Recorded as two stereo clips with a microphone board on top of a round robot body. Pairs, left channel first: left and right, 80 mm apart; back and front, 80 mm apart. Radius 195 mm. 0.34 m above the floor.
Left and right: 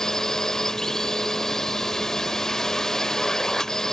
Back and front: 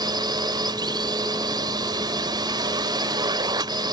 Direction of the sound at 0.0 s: 5° left.